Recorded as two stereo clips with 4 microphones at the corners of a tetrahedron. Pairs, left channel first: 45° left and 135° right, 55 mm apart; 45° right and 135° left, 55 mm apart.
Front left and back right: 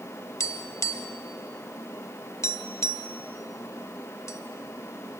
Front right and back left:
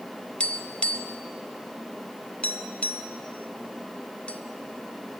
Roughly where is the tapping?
Ahead left.